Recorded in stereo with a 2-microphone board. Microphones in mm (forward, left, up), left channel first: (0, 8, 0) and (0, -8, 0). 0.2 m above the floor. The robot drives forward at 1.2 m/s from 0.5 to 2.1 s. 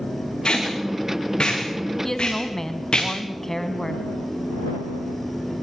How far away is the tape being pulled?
About 7 m.